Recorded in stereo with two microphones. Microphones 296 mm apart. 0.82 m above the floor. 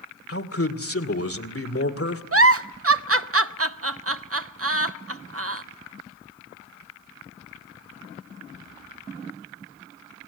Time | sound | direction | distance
0.3 | a man speaking | 50° left (ahead or behind) | 2 m
2.3 | a giggle | 50° right (ahead or behind) | 0.7 m